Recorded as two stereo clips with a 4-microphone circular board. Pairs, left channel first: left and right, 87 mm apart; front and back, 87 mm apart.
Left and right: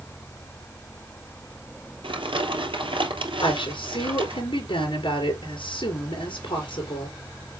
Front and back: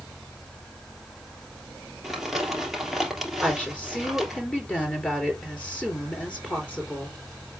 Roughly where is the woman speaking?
Left.